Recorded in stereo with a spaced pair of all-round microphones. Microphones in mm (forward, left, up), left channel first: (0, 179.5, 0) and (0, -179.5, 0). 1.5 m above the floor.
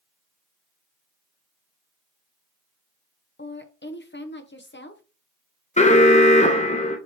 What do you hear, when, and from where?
3.4 s a woman speaking: 35° left (ahead or behind), 0.7 m
5.8 s an alarm: 20° left (ahead or behind), 0.6 m